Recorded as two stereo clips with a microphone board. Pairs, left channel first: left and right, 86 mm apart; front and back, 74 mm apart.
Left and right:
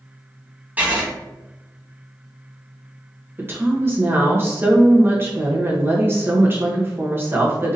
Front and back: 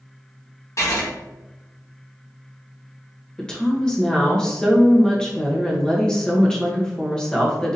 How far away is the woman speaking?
About 0.9 m.